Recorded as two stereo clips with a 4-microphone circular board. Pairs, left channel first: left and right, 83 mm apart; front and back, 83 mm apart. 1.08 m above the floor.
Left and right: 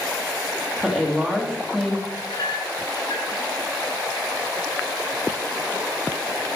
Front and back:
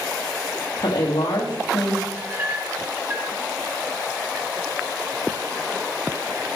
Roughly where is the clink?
Behind left.